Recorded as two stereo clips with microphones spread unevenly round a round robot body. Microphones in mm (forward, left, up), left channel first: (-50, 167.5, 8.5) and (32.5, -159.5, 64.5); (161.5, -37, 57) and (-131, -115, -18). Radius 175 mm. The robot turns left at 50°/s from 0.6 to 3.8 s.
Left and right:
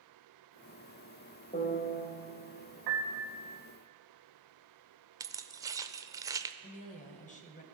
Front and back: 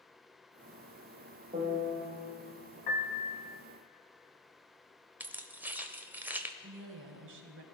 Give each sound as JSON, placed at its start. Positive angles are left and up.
{"t": 1.5, "sound": "a piano", "azimuth_deg": 150, "distance_m": 1.7}
{"t": 2.9, "sound": "a piano", "azimuth_deg": -55, "distance_m": 2.0}
{"t": 5.2, "sound": "keys jangling", "azimuth_deg": -165, "distance_m": 0.6}
{"t": 6.6, "sound": "a woman speaking", "azimuth_deg": 165, "distance_m": 1.6}